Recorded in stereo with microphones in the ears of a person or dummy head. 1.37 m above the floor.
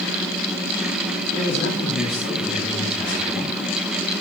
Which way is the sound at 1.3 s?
35° left (ahead or behind).